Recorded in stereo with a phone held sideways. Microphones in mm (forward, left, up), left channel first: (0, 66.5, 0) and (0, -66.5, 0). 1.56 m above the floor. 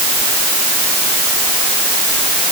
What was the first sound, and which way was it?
Only background noise.